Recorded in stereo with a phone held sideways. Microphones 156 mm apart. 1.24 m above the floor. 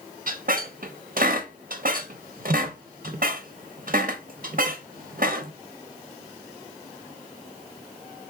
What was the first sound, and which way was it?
A squeak, 65° right (ahead or behind).